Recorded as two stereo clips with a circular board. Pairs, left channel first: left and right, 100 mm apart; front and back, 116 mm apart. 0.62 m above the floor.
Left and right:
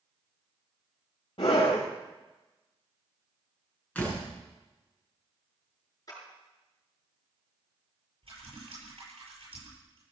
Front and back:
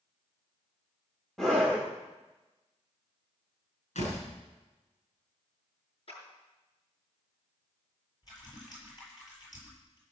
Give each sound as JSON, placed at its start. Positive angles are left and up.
{"t": 1.4, "sound": "a scream", "azimuth_deg": 85, "distance_m": 1.6}
{"t": 4.0, "sound": "a door slam", "azimuth_deg": 15, "distance_m": 5.5}
{"t": 6.1, "sound": "a clap", "azimuth_deg": 40, "distance_m": 6.0}
{"t": 8.2, "sound": "typing on a keyboard", "azimuth_deg": -55, "distance_m": 8.5}